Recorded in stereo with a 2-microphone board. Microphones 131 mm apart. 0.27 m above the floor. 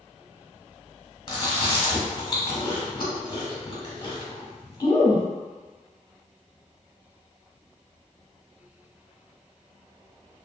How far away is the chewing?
About 1.0 m.